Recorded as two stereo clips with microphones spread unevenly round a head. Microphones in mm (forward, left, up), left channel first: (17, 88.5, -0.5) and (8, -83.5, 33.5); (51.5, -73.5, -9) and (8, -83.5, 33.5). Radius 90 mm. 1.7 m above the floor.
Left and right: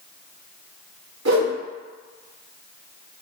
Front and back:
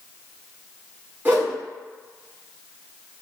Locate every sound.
1.2 s a whoosh: 115° right, 1.6 m